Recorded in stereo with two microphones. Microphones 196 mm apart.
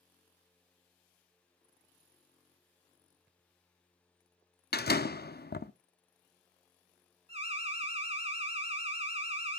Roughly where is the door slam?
Left.